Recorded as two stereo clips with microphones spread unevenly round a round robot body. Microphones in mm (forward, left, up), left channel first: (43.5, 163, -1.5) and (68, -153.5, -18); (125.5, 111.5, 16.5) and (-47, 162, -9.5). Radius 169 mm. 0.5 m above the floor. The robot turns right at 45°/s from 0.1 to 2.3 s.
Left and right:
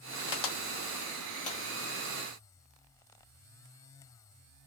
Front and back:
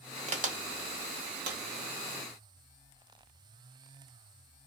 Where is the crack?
110° left, 1.3 m; by 1.6 s 170° left, 1.3 m.